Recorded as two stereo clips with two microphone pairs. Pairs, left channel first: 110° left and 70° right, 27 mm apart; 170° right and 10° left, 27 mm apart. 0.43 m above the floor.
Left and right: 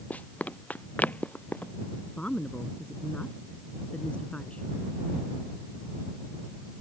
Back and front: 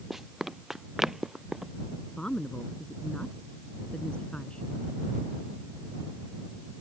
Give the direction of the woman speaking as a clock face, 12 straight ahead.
7 o'clock.